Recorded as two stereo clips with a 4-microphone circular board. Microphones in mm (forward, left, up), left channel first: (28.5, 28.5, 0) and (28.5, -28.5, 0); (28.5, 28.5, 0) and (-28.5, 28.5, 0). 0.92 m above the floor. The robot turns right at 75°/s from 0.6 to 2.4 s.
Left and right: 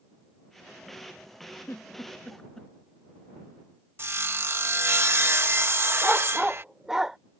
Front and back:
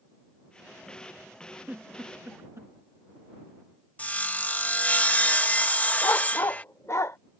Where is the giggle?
110° left; by 2.7 s 165° left.